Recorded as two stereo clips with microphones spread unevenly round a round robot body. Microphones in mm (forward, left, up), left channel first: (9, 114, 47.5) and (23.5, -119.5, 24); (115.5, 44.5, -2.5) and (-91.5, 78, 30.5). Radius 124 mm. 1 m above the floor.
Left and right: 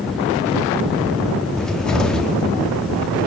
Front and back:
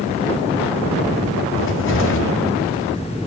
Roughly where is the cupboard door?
Ahead.